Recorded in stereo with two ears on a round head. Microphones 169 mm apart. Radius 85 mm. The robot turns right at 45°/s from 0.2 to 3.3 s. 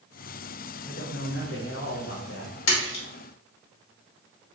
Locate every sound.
0.8 s a man speaking: 35° left, 1.1 m; by 2.5 s 110° left, 1.1 m
2.7 s a splash: 75° left (ahead or behind), 1.4 m